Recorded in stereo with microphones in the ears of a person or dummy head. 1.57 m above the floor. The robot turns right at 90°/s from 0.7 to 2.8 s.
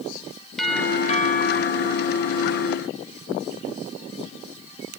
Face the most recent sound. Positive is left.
turn(degrees=-170)